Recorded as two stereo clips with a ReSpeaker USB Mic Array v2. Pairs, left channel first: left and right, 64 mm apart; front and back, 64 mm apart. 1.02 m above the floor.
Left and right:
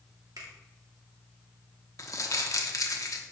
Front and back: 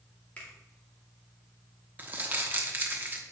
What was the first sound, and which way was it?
A finger snap, 65° right.